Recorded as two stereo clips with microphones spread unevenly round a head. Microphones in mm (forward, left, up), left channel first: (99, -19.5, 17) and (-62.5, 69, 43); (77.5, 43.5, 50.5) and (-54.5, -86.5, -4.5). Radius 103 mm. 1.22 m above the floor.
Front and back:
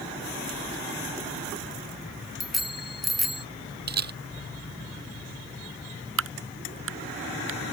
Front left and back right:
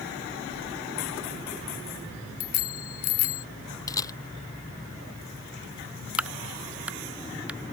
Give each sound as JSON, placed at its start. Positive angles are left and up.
{"t": 2.4, "sound": "a bicycle bell", "azimuth_deg": 65}
{"t": 3.9, "sound": "a camera shutter", "azimuth_deg": 120}
{"t": 6.2, "sound": "a crack", "azimuth_deg": 140}